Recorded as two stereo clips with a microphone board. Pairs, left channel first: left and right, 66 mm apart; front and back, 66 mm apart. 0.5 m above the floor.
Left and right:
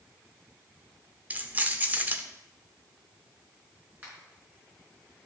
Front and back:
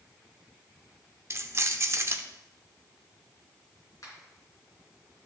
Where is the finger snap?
30° right, 4 m.